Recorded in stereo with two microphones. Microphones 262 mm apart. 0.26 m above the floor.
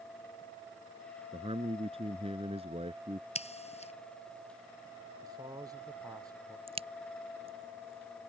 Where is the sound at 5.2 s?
15° right (ahead or behind).